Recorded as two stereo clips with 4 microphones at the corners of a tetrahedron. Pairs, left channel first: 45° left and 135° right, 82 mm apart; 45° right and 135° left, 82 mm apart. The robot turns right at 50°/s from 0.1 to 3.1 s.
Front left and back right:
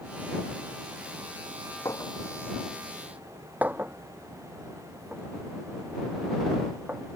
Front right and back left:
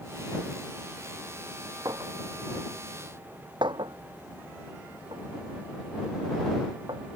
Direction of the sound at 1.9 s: 90° left.